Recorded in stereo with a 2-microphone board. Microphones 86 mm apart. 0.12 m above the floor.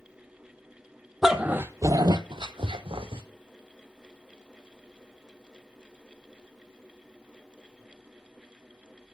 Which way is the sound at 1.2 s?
5° right (ahead or behind).